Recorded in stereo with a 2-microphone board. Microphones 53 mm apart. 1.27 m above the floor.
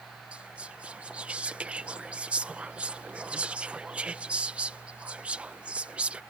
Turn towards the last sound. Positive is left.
turn(degrees=-25)  # may be behind; listen again after turning